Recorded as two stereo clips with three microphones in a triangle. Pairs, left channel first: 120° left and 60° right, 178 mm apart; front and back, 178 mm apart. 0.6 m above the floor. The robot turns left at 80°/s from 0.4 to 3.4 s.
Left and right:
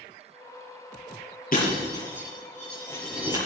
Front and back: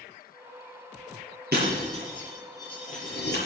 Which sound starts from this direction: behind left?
Breaking glass, at 1.5 s.